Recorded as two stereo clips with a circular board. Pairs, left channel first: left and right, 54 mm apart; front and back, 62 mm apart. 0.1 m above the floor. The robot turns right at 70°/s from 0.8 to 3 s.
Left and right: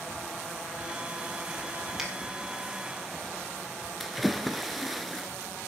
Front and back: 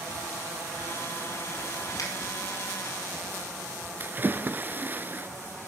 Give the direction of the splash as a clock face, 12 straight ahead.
6 o'clock.